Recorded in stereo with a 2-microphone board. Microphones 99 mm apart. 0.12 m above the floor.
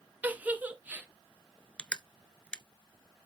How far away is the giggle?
About 1.1 m.